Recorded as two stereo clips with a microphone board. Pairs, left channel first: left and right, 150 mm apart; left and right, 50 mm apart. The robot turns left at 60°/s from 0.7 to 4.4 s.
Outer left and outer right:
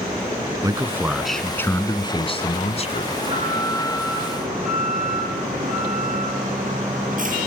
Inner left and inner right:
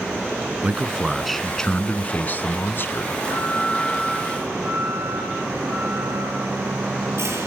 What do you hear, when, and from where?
0.6 s a man speaking: 145° right, 1.6 m; by 3.1 s 70° left, 1.6 m
3.1 s an alarm: 25° right, 5.5 m; by 7.5 s 105° right, 5.5 m